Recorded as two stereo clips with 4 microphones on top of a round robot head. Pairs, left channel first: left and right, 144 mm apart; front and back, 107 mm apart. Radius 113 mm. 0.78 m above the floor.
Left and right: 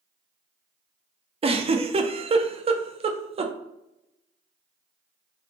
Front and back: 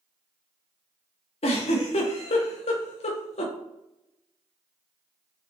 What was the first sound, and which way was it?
A giggle, 40° right.